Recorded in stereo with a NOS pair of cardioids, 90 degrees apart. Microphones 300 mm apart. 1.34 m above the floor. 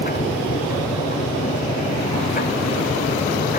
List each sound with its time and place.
0.0 s a machine running: 30° left